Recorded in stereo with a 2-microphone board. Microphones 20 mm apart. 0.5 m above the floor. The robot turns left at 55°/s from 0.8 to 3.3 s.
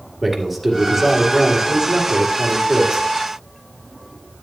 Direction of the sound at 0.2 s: Straight ahead.